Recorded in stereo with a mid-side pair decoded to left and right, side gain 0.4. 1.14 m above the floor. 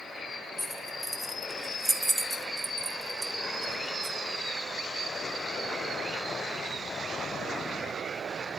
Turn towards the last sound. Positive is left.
turn(degrees=-55)